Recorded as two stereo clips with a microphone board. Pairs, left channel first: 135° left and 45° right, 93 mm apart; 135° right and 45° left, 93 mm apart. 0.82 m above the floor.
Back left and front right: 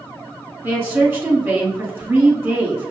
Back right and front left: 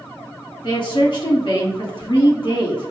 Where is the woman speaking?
105° right, 1.4 m.